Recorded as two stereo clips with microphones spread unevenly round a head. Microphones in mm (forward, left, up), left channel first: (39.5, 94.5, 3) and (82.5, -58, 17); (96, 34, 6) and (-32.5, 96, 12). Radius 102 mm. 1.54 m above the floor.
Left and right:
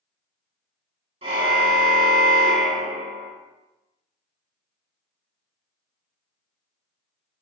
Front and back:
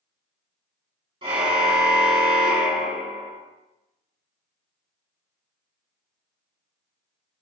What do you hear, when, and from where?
1.2 s a car horn: 140° right, 9.5 m; by 3.3 s 130° right, 9.5 m